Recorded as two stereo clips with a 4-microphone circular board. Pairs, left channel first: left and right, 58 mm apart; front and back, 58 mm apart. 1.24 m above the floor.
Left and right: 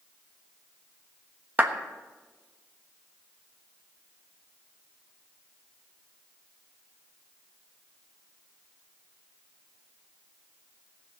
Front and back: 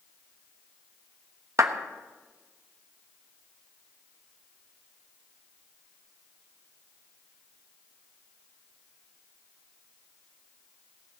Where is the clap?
150° right, 1.1 m.